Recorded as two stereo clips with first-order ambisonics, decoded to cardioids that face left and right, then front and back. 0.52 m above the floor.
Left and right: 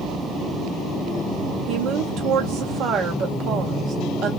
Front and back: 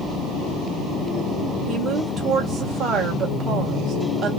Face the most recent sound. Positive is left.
turn(degrees=-125)